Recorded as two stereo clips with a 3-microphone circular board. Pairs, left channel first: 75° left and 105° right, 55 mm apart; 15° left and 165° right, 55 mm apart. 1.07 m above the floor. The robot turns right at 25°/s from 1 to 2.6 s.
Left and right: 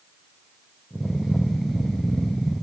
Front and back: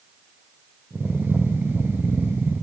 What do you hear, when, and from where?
Only background noise.